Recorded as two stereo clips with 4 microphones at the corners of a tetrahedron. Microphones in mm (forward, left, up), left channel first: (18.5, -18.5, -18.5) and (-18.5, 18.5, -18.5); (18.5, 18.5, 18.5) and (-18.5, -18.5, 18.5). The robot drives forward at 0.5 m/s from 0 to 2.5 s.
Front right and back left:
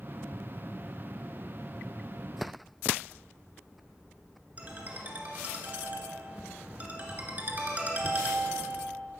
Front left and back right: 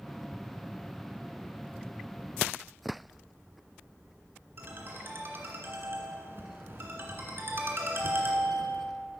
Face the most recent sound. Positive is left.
turn(degrees=-170)